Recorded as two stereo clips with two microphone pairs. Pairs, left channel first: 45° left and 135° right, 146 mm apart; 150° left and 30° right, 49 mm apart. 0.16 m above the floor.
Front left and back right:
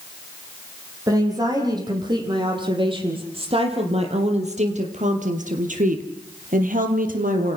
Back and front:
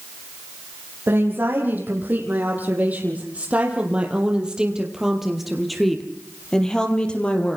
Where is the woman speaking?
70° right, 8 m; by 7.6 s 145° right, 5 m.